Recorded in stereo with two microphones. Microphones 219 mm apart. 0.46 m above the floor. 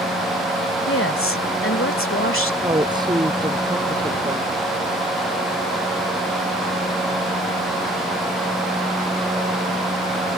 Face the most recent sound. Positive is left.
turn(degrees=-20)  # may be behind; listen again after turning